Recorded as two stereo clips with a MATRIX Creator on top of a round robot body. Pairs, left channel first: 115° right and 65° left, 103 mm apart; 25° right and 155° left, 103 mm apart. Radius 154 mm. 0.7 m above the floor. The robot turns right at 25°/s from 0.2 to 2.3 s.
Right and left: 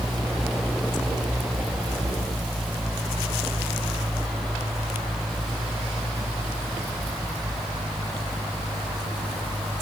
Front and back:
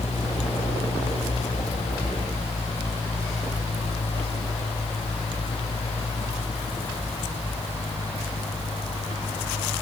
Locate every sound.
Only background noise.